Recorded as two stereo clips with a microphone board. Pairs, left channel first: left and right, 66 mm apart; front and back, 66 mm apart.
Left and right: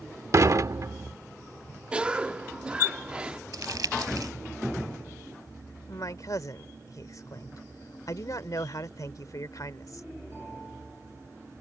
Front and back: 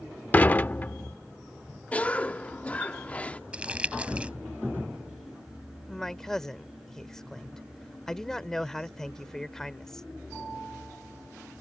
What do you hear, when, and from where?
0.3 s dishes clattering: 60° right
1.9 s a cough: 40° right
3.5 s crumpling: 110° right
5.9 s a man speaking: 80° left